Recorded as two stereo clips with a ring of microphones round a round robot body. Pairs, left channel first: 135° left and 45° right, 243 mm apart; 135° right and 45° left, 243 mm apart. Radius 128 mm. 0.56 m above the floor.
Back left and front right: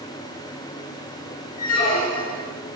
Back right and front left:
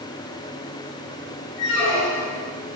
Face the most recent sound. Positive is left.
turn(degrees=-170)